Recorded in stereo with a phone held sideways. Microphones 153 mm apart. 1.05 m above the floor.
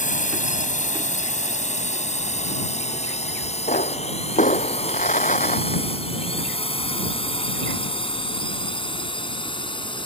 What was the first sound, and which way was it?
A drone, 55° left (ahead or behind).